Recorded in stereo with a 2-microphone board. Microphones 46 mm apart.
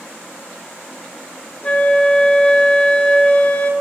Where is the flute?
25° left (ahead or behind), 0.5 m.